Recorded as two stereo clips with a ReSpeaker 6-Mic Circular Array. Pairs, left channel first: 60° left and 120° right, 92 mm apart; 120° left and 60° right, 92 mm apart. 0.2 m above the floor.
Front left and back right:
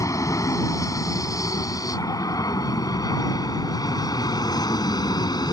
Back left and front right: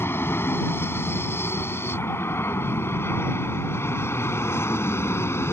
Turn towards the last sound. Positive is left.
turn(degrees=70)